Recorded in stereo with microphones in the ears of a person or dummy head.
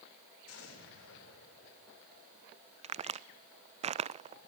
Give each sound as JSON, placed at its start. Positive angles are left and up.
{"t": 0.5, "sound": "an explosion", "side_deg": 85, "distance_m": 6.0}
{"t": 2.8, "sound": "a crack", "side_deg": -30, "distance_m": 0.5}